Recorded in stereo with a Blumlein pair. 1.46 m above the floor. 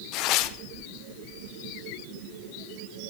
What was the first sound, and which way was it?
Tearing paper, 40° left.